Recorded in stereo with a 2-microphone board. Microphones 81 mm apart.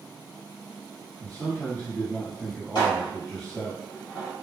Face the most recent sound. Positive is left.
turn(degrees=55)  # may be behind; listen again after turning